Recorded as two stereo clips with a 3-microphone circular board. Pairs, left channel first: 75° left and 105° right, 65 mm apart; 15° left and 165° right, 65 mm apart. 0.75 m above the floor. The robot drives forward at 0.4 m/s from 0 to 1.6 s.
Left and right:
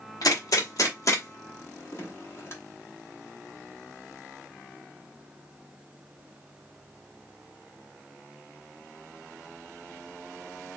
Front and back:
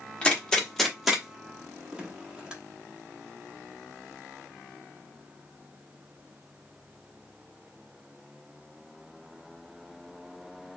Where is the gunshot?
85° left, 1.0 m; by 2.5 s 115° left, 1.1 m.